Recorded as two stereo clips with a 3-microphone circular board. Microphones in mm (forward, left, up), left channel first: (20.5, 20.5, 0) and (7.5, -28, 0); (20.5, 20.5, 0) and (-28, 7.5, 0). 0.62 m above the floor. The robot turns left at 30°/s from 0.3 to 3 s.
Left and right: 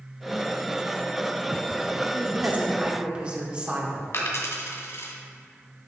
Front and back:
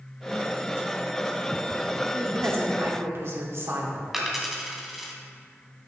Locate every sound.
2.1 s a woman speaking: 140° right, 2.0 m; by 4.0 s 170° right, 2.0 m
4.1 s a dropped coin: 110° left, 1.9 m